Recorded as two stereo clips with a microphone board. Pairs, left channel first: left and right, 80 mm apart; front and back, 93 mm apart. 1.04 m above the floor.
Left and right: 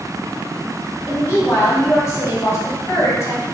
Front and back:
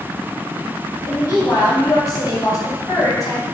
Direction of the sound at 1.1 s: 40° left.